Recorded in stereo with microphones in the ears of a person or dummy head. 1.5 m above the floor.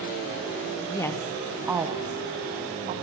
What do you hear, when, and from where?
0.9 s a woman speaking: 20° left (ahead or behind), 0.8 m; by 3.0 s 35° right (ahead or behind), 1.6 m